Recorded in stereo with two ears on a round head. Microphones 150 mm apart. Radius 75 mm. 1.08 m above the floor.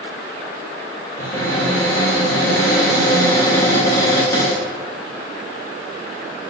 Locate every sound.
1.2 s a cupboard door: 15° left (ahead or behind), 1.3 m